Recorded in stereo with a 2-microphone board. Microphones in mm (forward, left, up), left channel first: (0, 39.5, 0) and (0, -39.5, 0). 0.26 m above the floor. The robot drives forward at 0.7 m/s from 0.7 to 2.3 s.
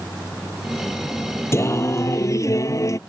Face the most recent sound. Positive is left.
turn(degrees=40)  # may be behind; listen again after turning